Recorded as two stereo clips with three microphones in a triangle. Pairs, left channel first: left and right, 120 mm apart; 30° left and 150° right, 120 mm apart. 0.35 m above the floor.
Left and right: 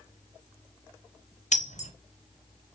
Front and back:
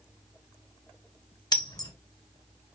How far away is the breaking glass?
About 0.7 m.